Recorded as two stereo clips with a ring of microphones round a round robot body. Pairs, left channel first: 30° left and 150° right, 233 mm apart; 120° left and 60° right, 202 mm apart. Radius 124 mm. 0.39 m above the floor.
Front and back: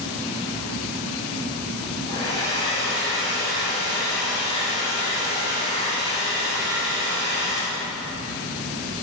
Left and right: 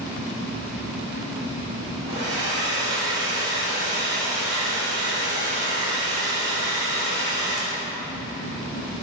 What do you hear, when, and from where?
2.1 s a hair dryer: 75° right, 3.5 m